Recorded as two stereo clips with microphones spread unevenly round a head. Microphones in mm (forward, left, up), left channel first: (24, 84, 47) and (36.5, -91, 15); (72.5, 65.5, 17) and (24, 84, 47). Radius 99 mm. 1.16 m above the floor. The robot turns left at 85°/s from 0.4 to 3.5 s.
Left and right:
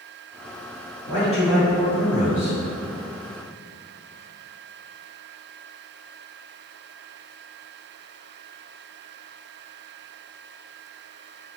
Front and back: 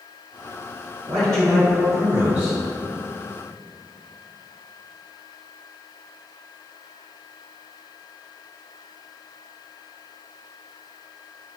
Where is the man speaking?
150° right, 1.7 m; by 2.6 s 80° left, 1.7 m.